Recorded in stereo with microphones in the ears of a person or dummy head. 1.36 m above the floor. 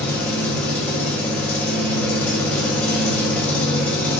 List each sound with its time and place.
0.0 s an engine running: 5° left (ahead or behind), 0.9 m